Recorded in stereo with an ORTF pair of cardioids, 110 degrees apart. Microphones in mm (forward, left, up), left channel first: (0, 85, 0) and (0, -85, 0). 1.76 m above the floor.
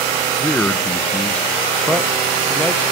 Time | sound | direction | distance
0.4 | a man speaking | 5° left | 1.6 m